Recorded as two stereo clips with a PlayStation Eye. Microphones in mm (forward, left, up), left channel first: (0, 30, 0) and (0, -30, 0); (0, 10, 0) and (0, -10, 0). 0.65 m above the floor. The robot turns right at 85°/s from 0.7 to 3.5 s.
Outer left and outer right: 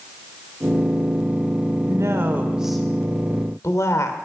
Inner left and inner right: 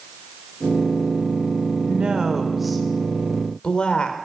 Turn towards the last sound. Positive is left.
turn(degrees=65)